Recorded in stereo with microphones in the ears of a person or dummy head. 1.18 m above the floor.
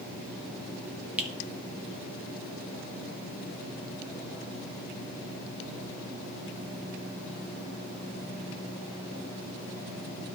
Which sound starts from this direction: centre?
A finger snap, at 1.2 s.